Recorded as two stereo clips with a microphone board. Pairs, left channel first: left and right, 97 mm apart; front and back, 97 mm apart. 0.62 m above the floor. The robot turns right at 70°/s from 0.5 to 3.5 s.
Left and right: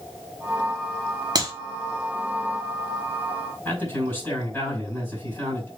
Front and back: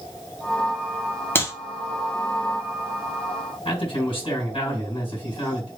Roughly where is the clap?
Ahead right.